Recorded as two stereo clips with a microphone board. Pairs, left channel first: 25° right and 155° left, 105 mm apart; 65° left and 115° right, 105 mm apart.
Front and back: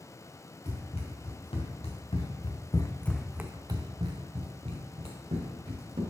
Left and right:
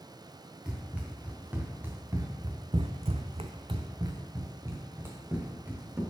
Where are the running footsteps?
35° right, 2.5 m; by 6.0 s 175° left, 3 m.